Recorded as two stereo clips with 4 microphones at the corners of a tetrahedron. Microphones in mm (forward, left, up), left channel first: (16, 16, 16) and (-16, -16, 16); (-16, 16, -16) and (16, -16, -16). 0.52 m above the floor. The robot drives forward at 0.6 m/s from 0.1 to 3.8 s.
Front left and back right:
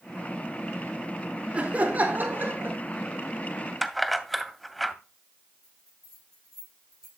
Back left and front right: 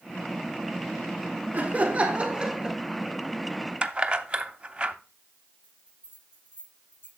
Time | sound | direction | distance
1.5 | laughter | 80° right | 1.4 m
3.8 | keys jangling | 45° right | 0.5 m
5.6 | a bell | 125° left | 6.5 m